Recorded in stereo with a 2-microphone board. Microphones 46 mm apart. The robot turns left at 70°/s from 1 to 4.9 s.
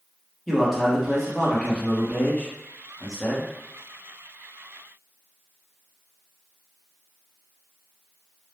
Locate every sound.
0.5 s a man speaking: centre (ahead or behind), 0.9 m; by 3.5 s 5° left (ahead or behind), 0.9 m